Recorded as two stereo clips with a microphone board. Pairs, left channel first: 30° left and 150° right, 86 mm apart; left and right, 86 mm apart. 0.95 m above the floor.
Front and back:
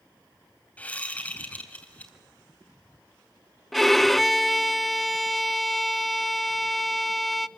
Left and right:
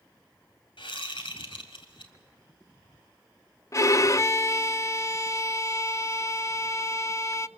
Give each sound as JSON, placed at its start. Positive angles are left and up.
{"t": 0.8, "sound": "a whoosh", "azimuth_deg": 100, "distance_m": 2.5}
{"t": 3.7, "sound": "a violin", "azimuth_deg": 120, "distance_m": 0.5}